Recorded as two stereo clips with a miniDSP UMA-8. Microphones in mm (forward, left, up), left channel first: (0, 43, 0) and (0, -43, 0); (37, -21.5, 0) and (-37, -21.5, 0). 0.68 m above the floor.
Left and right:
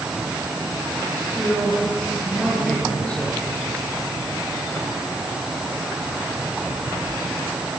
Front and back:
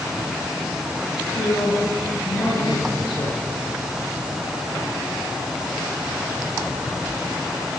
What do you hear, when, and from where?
1.2 s a man speaking: 10° left, 9.5 m